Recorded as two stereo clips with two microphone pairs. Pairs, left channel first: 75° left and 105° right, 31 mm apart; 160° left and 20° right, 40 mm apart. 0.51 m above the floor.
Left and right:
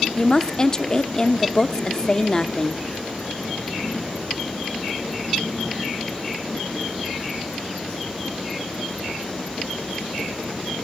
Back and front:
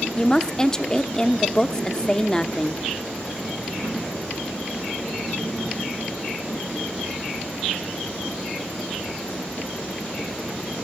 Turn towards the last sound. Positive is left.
turn(degrees=110)